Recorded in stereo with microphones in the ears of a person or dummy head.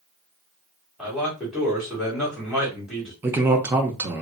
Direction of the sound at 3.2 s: 15° right (ahead or behind).